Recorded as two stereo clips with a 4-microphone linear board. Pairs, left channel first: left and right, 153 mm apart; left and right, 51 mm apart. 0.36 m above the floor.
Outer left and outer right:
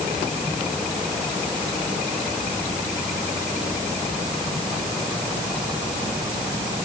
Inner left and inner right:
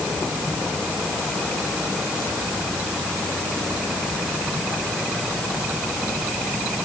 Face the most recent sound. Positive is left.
No sound to turn to.